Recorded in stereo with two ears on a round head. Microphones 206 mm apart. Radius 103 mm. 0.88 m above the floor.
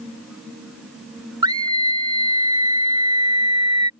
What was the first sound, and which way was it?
A scream, 20° right (ahead or behind).